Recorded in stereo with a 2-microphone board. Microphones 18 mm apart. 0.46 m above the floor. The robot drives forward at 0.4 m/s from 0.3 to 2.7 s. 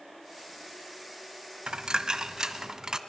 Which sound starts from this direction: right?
A dropped coin, at 1.7 s.